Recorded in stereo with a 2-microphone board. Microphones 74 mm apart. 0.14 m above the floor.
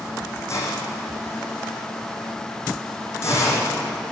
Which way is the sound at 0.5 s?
35° left (ahead or behind).